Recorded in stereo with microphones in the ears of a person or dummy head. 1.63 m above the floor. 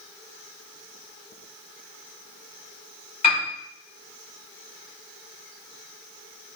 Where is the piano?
40° left (ahead or behind), 1.2 m.